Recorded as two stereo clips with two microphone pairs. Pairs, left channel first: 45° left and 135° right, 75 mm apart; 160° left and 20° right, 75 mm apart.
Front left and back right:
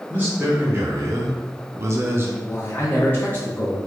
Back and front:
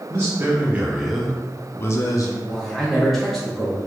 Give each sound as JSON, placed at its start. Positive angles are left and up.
{"t": 0.1, "sound": "a man speaking", "azimuth_deg": -70, "distance_m": 1.0}
{"t": 2.4, "sound": "a man speaking", "azimuth_deg": 75, "distance_m": 0.7}